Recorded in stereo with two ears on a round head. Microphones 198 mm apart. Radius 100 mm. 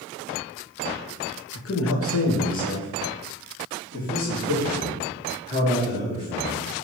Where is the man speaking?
65° left (ahead or behind), 1.4 m; by 6.7 s 25° left (ahead or behind), 4.5 m.